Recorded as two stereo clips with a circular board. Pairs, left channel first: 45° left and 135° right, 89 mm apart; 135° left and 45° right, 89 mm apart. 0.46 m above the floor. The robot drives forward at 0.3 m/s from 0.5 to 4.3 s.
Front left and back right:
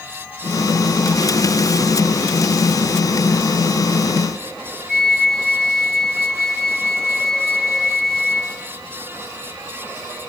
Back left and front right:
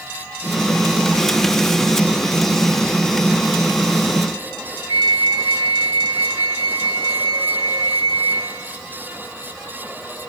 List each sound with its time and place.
4.9 s a flute: 40° right, 1.2 m